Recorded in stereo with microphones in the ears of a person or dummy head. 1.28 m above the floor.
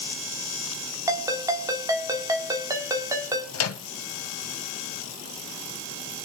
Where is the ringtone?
20° right (ahead or behind), 1.4 m.